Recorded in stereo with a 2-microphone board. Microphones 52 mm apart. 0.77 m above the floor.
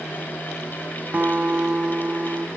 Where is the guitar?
35° right (ahead or behind), 0.6 m.